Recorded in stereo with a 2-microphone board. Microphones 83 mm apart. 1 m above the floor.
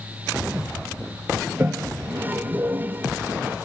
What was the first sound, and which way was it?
A toilet flushing, 25° right (ahead or behind).